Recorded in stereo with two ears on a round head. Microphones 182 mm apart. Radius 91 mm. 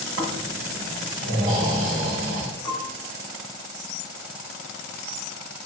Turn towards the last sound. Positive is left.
turn(degrees=20)  # may be behind; listen again after turning